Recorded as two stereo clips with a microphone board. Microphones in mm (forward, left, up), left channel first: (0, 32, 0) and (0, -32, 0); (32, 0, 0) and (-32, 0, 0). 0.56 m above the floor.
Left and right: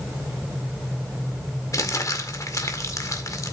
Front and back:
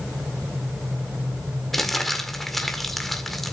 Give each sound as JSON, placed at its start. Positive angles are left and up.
{"t": 1.7, "sound": "crumpling", "azimuth_deg": 85, "distance_m": 1.7}